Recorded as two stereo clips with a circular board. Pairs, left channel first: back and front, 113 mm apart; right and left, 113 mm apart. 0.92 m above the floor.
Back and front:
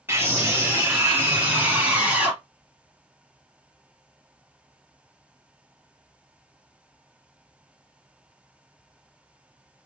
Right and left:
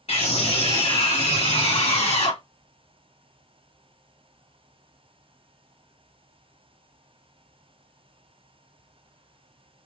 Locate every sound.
0.1 s a scream: 70° right, 3 m; by 2.4 s 75° right, 1.8 m